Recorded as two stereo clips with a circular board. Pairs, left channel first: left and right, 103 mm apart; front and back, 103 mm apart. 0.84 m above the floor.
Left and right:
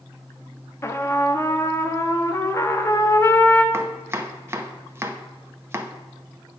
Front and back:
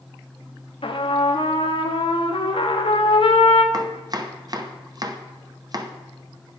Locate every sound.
0.8 s a trumpet: 25° left, 0.9 m
3.7 s chopping: 145° right, 0.8 m